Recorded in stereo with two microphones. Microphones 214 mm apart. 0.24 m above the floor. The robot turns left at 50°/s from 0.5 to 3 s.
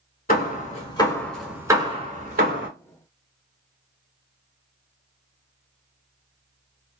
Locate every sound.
0.3 s hammering: 45° left (ahead or behind), 1.0 m; by 2.7 s 60° right (ahead or behind), 1.0 m